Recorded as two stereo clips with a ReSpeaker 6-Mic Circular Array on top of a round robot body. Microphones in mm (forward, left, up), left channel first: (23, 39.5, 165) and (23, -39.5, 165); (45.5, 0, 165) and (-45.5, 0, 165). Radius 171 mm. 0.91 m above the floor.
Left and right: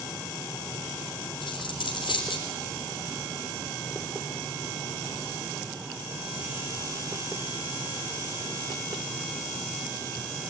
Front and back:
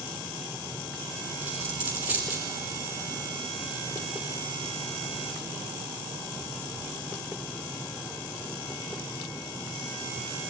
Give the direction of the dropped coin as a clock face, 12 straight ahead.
8 o'clock.